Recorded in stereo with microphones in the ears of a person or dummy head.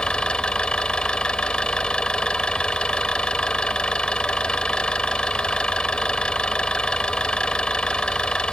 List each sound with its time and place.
0.0 s an engine running: 5° left (ahead or behind)